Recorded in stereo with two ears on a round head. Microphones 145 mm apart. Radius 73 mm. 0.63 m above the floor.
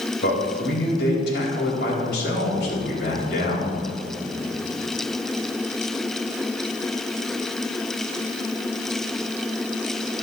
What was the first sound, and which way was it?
A man speaking, 75° left (ahead or behind).